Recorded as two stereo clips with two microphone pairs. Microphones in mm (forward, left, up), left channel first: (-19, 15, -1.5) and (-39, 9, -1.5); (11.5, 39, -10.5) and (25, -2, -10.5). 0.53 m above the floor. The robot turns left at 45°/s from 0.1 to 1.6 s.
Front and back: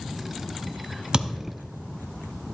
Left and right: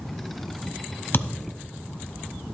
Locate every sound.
1.1 s a thud: 145° left, 1.4 m; by 1.6 s 125° left, 1.4 m